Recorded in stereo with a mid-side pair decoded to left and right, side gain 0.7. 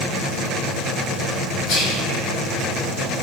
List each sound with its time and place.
1.7 s whispering: 60° left, 0.6 m